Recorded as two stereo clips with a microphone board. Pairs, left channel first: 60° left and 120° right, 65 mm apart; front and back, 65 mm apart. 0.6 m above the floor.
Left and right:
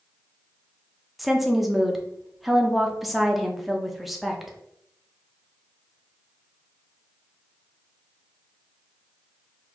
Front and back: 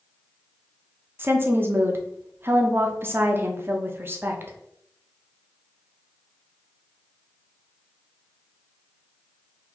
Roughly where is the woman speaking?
Behind left.